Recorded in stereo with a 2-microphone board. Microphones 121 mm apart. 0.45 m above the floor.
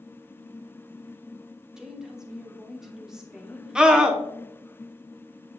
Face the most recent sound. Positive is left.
turn(degrees=-5)  # may be behind; listen again after turning